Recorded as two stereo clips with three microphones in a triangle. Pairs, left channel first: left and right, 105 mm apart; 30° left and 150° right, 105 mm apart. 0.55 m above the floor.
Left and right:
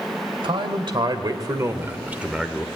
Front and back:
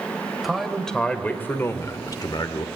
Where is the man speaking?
60° right, 2 m; by 2.6 s 5° left, 1.5 m.